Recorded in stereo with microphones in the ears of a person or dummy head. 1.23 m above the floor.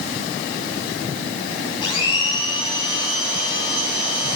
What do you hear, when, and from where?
1.8 s a blender: 25° left (ahead or behind), 3.5 m